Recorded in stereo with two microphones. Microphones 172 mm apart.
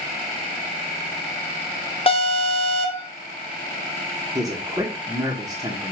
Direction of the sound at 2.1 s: 35° left (ahead or behind).